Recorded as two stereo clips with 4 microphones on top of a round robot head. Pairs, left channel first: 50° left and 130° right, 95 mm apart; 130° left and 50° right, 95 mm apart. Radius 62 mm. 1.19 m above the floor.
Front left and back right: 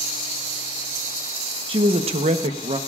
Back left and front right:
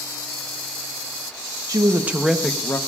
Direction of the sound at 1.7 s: 100° right.